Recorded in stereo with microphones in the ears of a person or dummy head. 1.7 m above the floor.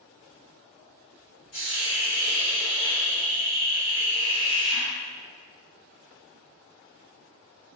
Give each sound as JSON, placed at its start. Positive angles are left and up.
{"t": 1.5, "sound": "a hiss", "side_deg": 50, "distance_m": 1.6}